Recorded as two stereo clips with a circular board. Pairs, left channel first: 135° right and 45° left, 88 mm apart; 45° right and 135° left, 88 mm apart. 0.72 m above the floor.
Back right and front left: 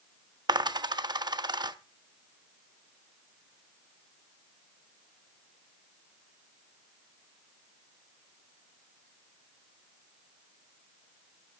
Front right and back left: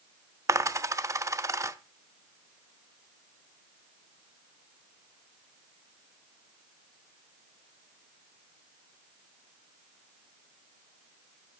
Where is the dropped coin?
80° left, 0.6 m.